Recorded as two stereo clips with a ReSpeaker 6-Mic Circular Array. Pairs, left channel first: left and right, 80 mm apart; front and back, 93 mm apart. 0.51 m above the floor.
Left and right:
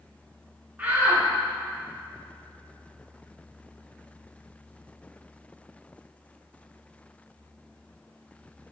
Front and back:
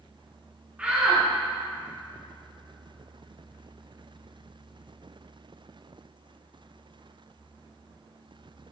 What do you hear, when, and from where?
0.8 s a shout: 125° right, 1.1 m